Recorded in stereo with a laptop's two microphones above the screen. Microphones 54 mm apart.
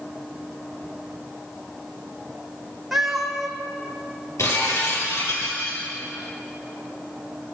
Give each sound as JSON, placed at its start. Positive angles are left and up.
{"t": 2.9, "sound": "a cat meowing", "side_deg": 0, "distance_m": 3.5}
{"t": 4.4, "sound": "breaking glass", "side_deg": 65, "distance_m": 10.0}